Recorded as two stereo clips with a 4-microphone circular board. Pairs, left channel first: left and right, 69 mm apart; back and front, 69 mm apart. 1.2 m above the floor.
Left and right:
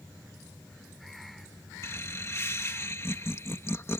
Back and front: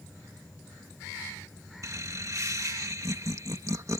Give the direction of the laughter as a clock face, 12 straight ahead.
11 o'clock.